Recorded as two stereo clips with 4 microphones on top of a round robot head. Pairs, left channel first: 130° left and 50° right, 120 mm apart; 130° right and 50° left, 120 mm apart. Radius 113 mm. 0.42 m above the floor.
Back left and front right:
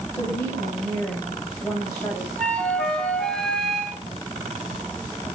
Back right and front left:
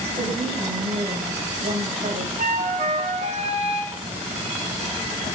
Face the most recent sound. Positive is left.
turn(degrees=45)